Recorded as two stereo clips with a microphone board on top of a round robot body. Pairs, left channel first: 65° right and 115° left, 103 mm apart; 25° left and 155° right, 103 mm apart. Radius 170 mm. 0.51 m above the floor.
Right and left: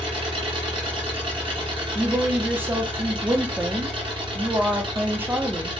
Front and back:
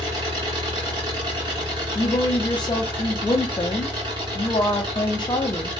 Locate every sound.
0.0 s an engine running: 155° left, 1.7 m
1.9 s a woman speaking: 50° left, 0.8 m